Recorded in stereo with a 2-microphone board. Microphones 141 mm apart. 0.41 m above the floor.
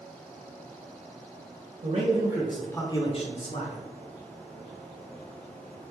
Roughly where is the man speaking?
Right.